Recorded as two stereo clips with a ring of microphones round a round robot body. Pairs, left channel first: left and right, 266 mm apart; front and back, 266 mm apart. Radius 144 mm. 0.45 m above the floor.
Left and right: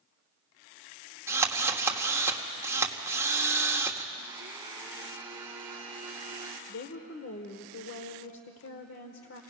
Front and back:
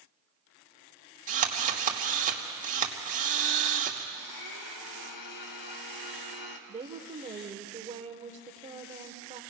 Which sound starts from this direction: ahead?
A blender, at 4.1 s.